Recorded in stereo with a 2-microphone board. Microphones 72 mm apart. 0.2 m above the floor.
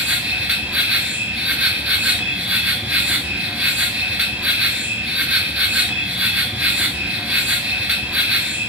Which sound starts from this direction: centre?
An insect, at 0.0 s.